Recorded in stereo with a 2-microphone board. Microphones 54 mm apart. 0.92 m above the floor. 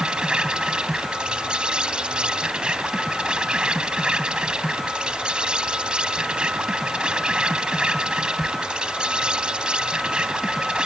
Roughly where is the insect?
Centre.